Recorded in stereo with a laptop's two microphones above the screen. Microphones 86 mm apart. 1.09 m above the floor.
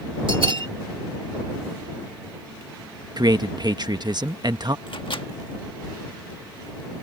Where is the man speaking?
50° right (ahead or behind).